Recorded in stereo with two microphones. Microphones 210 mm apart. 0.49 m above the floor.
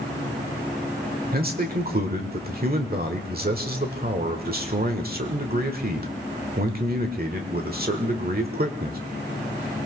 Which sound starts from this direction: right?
A man speaking, at 1.3 s.